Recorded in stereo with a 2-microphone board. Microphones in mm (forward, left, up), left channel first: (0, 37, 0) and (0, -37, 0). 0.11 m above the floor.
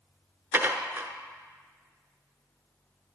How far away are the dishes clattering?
About 0.9 m.